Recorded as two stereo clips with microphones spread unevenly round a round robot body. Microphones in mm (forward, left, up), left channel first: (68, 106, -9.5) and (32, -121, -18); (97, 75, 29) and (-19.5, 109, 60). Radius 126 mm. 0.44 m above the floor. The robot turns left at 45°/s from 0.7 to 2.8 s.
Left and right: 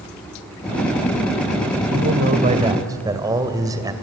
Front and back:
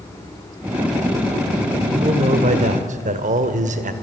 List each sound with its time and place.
1.9 s a man speaking: 130° right, 1.8 m; by 3.9 s 170° right, 1.8 m